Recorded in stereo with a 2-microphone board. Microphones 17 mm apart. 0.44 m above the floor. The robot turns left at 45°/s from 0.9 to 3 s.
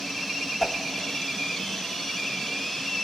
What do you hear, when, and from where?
0.6 s a whoosh: 15° left (ahead or behind), 1.2 m